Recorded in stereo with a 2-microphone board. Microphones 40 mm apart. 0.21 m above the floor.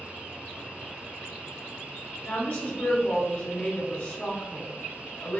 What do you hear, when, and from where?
2.2 s a woman speaking: 25° left (ahead or behind), 1.1 m